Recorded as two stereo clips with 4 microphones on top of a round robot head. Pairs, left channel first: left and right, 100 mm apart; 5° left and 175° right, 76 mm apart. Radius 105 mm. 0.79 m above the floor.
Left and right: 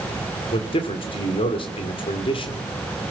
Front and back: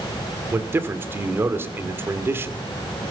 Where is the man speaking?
125° left, 2.5 m.